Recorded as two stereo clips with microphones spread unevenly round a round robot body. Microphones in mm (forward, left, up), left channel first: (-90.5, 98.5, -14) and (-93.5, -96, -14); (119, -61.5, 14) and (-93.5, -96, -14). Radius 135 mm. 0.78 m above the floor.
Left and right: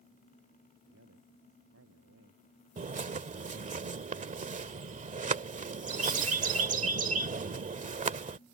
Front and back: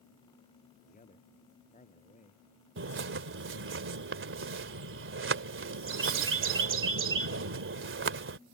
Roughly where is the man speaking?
Ahead right.